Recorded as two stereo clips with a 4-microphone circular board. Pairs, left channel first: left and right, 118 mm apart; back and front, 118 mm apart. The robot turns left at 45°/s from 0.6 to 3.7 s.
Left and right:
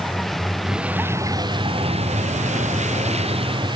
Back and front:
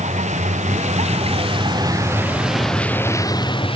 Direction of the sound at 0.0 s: Straight ahead.